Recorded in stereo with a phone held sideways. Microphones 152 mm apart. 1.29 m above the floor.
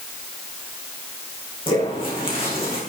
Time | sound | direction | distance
1.7 | footsteps | 35° left (ahead or behind) | 4 m